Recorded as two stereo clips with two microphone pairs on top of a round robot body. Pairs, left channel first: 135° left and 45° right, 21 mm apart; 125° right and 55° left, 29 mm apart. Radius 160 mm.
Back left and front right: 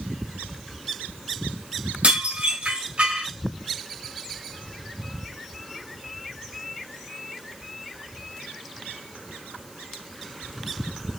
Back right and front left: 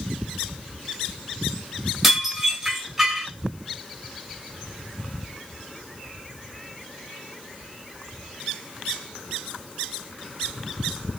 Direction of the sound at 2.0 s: 25° right.